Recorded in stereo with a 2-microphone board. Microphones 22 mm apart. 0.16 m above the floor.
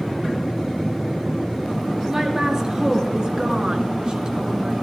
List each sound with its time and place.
2.1 s a woman speaking: 25° right (ahead or behind), 3.5 m; by 4.7 s 45° right (ahead or behind), 2.5 m